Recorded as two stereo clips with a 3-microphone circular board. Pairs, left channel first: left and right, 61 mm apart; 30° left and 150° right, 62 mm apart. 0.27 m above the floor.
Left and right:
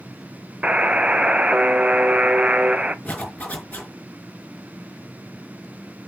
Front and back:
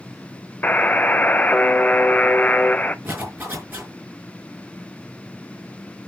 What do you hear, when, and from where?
0.6 s a buzzer: 25° right, 0.6 m
3.0 s a zipper: 155° left, 5 m